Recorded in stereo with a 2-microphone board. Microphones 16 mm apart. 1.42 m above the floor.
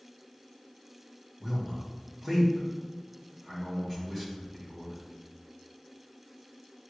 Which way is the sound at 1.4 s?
10° right (ahead or behind).